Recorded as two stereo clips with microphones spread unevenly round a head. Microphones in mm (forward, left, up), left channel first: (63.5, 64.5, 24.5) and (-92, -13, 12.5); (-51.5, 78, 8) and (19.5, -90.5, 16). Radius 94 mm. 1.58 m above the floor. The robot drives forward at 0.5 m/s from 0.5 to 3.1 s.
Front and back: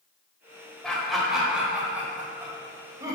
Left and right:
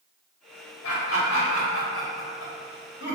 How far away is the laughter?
About 2.0 m.